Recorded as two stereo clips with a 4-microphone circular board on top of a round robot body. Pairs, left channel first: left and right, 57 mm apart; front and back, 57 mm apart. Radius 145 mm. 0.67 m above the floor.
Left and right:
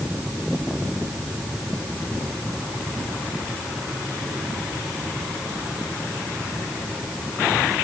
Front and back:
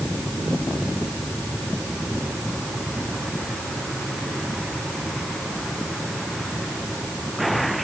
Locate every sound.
Only background noise.